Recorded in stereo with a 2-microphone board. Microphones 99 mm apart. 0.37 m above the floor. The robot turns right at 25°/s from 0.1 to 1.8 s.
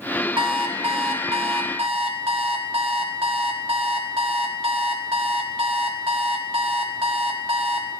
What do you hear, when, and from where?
0.4 s an alarm clock: 120° right, 0.9 m; by 7.9 s 85° right, 0.9 m